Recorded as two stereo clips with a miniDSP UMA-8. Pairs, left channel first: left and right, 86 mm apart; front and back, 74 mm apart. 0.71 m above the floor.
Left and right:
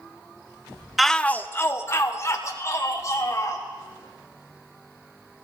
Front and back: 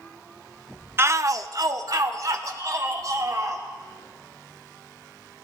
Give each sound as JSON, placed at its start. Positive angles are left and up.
{"t": 1.0, "sound": "a shout", "azimuth_deg": -175, "distance_m": 0.6}